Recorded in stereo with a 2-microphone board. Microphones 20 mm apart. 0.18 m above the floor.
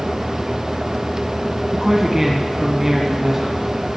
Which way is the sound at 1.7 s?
20° right (ahead or behind).